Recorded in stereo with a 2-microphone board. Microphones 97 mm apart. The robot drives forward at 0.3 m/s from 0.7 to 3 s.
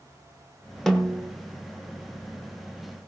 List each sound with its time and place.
0.9 s a snare drum: 5° left (ahead or behind), 1.7 m